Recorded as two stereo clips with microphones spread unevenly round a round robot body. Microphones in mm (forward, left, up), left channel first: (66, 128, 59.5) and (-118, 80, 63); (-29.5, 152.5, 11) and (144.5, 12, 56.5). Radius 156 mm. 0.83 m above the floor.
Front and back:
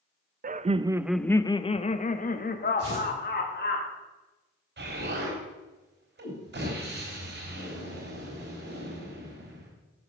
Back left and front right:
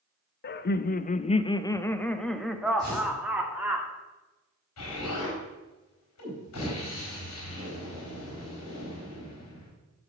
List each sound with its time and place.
0.4 s laughter: 155° left, 0.6 m; by 3.8 s 45° left, 1.8 m
2.8 s tearing paper: 125° right, 4 m
4.8 s an explosion: 170° left, 4 m